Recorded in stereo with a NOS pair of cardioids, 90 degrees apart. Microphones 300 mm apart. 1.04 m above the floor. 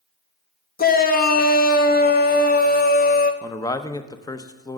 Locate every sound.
0.8 s a shout: 30° left, 1.1 m
3.4 s a man speaking: 15° left, 0.7 m